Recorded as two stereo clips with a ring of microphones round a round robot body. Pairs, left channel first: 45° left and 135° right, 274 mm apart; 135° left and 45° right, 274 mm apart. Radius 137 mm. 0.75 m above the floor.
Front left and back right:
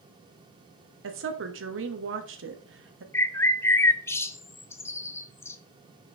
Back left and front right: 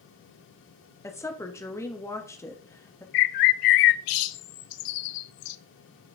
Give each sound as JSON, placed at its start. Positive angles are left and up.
{"t": 1.0, "sound": "a woman speaking", "azimuth_deg": -150, "distance_m": 1.3}
{"t": 3.1, "sound": "a bird", "azimuth_deg": 125, "distance_m": 0.6}